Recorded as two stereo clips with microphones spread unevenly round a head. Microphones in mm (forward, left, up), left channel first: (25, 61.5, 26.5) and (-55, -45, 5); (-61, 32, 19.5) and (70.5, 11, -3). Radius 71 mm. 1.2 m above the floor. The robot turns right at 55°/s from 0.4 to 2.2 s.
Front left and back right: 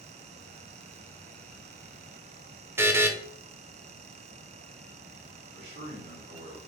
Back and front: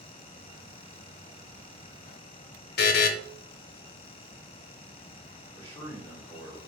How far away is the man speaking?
About 1.8 m.